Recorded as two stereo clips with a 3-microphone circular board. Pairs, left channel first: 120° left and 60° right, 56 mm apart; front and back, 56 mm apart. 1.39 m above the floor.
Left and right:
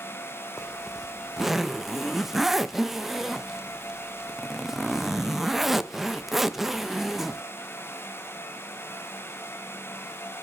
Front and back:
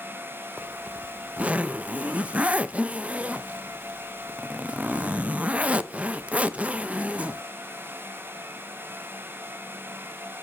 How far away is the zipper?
About 0.6 m.